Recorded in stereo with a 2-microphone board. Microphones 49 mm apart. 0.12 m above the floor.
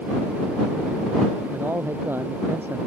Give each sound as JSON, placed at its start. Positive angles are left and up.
{"t": 1.5, "sound": "a man speaking", "side_deg": -50}